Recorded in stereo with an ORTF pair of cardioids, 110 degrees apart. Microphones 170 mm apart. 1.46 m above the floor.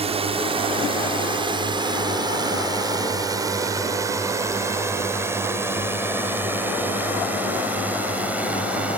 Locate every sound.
0.0 s a drone: 35° right; by 9.0 s 5° right